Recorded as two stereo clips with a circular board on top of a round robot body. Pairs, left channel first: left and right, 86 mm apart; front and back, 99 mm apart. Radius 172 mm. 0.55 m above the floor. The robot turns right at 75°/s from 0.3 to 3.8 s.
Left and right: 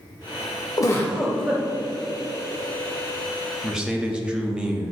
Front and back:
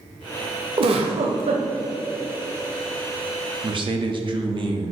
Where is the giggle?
140° left, 0.7 m; by 1.6 s 155° right, 0.7 m.